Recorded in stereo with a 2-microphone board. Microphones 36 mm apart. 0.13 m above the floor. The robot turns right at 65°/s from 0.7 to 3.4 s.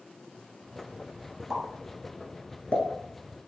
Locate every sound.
1.5 s a pop: 20° right (ahead or behind), 0.8 m; by 3.5 s 40° left (ahead or behind), 0.8 m